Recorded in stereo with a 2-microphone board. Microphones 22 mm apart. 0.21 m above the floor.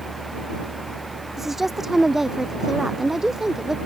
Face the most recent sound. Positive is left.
turn(degrees=-20)  # may be behind; listen again after turning